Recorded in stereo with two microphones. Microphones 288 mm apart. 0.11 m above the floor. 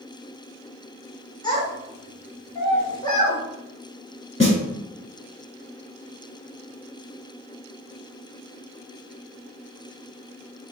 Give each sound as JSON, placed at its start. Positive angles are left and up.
{"t": 1.4, "sound": "a child speaking", "side_deg": 15, "distance_m": 1.1}
{"t": 4.4, "sound": "a snare drum", "side_deg": 20, "distance_m": 1.3}